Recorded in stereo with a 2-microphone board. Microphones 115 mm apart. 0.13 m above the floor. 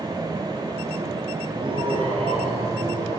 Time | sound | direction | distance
1.5 | laughter | 45° right (ahead or behind) | 3 m